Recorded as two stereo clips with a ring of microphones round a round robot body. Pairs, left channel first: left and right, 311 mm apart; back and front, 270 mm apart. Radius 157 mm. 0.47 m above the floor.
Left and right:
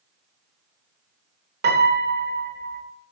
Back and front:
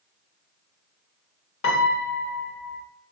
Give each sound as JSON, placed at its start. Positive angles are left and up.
{"t": 1.6, "sound": "a piano", "azimuth_deg": -140, "distance_m": 1.4}